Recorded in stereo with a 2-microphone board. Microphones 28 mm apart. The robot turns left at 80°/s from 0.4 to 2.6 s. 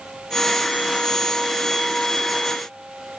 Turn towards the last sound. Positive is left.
No sound to turn to.